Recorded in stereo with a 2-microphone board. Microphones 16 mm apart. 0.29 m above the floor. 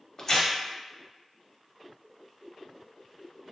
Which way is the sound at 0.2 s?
35° left (ahead or behind).